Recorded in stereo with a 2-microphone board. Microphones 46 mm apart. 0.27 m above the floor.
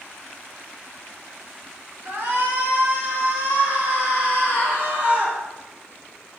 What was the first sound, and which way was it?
A shout, 70° right (ahead or behind).